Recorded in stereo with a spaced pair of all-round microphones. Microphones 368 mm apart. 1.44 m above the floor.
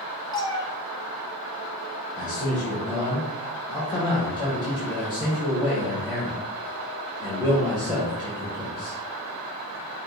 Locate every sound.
0.3 s a cat meowing: 10° left (ahead or behind), 0.7 m
2.2 s a man speaking: 10° right (ahead or behind), 1.4 m